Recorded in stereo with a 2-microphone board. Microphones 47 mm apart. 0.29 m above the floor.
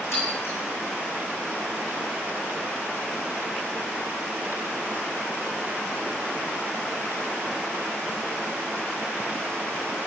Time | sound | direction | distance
0.1 | breaking glass | 65° left (ahead or behind) | 4.5 m